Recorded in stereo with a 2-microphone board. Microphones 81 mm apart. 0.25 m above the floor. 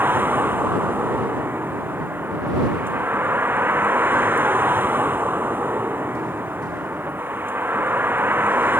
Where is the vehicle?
25° right (ahead or behind).